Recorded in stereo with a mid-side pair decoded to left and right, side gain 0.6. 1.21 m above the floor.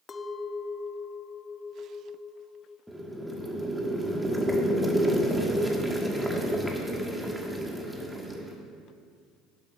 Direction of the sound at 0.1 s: 30° left.